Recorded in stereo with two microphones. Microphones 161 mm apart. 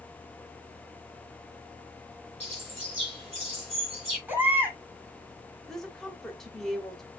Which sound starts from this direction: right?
A bird, at 2.4 s.